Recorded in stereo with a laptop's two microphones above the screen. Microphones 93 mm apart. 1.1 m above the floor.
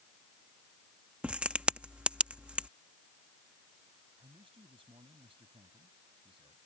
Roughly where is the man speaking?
Right.